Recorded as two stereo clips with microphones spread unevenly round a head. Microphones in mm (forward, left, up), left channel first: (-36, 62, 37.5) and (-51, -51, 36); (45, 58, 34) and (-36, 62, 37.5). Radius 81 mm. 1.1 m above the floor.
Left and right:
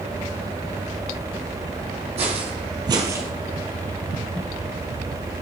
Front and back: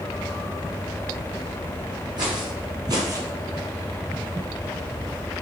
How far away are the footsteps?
About 2 m.